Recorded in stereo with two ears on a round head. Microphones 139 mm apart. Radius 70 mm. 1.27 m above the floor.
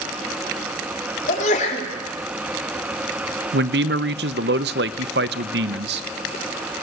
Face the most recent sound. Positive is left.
turn(degrees=-80)